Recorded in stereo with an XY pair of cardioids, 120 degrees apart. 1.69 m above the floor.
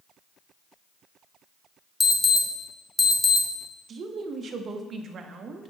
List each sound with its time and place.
2.0 s an alarm: 10° left, 1.1 m
3.9 s a woman speaking: 40° right, 0.8 m